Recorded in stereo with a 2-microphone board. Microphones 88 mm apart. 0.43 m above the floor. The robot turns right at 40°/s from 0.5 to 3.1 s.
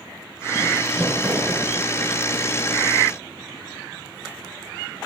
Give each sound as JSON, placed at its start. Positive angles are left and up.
{"t": 0.9, "sound": "crumpling", "side_deg": -30, "distance_m": 4.0}